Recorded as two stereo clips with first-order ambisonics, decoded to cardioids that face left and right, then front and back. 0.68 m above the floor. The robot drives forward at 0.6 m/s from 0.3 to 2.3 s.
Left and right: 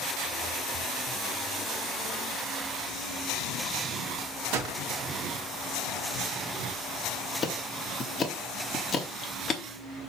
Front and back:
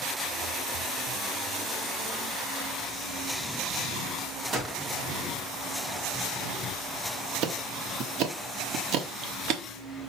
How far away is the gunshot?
About 2 m.